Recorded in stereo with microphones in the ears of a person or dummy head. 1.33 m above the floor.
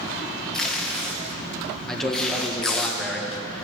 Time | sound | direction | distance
0.5 | tape being pulled | 5° left (ahead or behind) | 0.9 m
1.9 | a man speaking | centre (ahead or behind) | 1.5 m